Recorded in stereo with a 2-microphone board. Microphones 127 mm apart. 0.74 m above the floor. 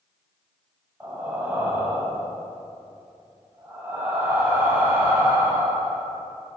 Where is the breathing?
15° right (ahead or behind), 1.6 m.